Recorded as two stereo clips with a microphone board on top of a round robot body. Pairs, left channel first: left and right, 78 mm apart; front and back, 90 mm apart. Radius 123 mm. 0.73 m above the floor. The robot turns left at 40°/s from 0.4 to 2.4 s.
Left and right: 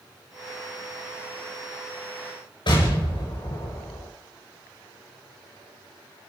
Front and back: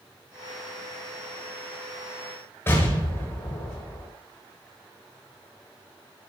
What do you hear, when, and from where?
2.7 s an explosion: 65° left, 8 m